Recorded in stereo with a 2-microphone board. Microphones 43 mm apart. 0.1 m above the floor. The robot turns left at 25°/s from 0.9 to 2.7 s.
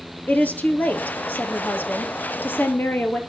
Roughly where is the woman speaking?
Behind left.